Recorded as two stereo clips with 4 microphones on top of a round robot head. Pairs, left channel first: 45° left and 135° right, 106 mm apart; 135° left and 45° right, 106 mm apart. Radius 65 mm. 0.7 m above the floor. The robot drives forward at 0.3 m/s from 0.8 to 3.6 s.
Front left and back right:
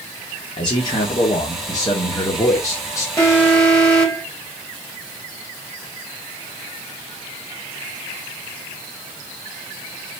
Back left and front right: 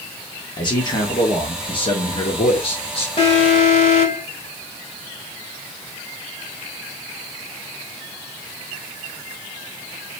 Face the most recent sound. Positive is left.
turn(degrees=120)